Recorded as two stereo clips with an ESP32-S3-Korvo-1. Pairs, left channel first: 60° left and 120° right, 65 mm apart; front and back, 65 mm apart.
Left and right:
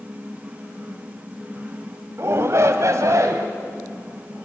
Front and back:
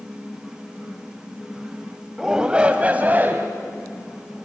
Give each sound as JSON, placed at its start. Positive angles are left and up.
{"t": 2.2, "sound": "a shout", "azimuth_deg": -100, "distance_m": 1.3}